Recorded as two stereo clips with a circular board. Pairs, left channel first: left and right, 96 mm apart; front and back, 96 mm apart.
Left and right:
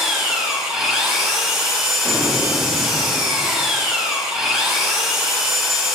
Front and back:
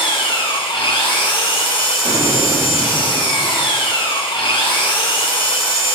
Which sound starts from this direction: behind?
An explosion, at 2.0 s.